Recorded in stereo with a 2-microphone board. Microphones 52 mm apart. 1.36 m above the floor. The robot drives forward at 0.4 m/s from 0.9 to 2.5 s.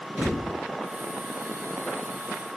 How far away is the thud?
About 1.0 m.